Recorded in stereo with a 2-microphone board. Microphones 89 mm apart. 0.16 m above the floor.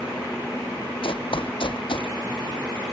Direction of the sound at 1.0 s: 75° left (ahead or behind).